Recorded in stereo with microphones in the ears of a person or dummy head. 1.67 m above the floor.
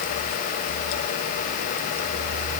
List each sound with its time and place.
Only background noise.